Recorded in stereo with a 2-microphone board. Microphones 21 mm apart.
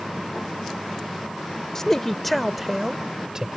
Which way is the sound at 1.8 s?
20° left (ahead or behind).